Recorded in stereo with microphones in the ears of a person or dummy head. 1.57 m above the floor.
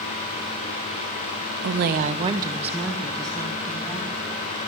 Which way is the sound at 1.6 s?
70° right (ahead or behind).